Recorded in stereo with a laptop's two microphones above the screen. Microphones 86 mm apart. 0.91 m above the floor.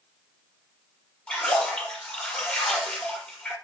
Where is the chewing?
No chewing in this recording.